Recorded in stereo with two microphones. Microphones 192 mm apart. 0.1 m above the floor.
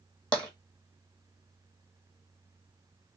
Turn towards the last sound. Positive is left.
turn(degrees=5)  # may be behind; listen again after turning